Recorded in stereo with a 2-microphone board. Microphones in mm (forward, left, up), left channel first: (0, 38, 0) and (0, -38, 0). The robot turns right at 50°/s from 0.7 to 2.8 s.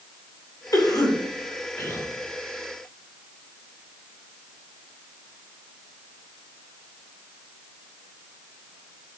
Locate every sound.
0.7 s a cough: 50° left (ahead or behind), 2.0 m; by 2.1 s 30° left (ahead or behind), 2.0 m